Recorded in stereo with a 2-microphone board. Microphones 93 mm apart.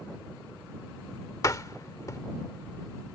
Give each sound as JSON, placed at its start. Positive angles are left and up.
{"t": 1.4, "sound": "a door slam", "side_deg": 40}